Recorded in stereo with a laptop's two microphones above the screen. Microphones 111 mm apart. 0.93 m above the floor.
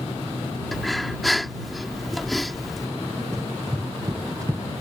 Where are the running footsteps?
25° right (ahead or behind).